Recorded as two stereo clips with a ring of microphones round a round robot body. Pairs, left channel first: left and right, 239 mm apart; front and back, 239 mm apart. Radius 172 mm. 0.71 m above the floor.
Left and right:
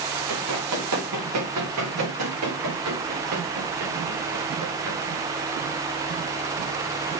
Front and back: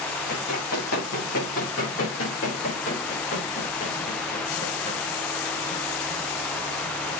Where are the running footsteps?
50° right, 7 m; by 5.0 s 65° right, 4.5 m.